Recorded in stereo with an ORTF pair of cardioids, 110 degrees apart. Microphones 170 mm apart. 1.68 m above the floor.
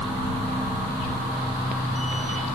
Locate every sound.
0.0 s a machine running: straight ahead